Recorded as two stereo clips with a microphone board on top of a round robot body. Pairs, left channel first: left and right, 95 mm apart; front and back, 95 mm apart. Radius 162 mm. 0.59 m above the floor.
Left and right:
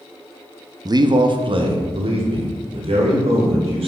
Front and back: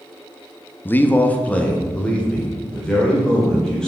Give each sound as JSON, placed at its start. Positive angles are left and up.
{"t": 0.8, "sound": "a man speaking", "azimuth_deg": -60, "distance_m": 0.7}